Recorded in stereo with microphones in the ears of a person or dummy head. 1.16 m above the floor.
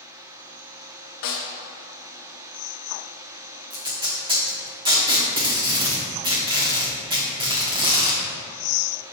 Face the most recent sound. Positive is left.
turn(degrees=-20)  # may be behind; listen again after turning